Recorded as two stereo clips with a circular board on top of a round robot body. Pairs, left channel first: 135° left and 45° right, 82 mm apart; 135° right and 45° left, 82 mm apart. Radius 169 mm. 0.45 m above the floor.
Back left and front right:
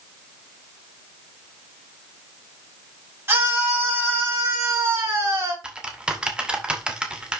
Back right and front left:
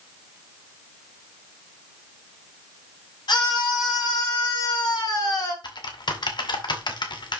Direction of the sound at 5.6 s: 125° right.